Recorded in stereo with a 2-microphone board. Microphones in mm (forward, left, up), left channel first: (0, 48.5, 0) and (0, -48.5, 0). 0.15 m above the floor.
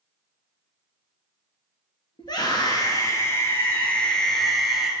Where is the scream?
50° left (ahead or behind), 2 m; by 4.9 s centre (ahead or behind), 2.5 m.